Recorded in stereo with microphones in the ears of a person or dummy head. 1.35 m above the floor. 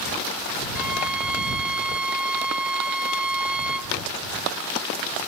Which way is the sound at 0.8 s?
5° right (ahead or behind).